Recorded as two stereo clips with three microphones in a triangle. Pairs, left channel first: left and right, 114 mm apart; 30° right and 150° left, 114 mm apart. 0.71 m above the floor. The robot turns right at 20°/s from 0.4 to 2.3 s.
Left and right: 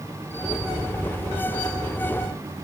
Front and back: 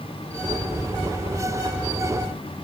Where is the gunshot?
No gunshot in this recording.